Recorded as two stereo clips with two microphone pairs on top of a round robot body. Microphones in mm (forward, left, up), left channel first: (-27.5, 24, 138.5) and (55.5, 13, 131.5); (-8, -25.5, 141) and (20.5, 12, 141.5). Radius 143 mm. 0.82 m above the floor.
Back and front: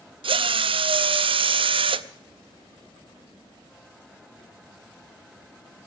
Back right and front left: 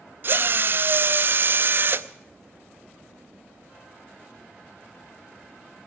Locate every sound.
0.2 s a drill: 5° left, 0.6 m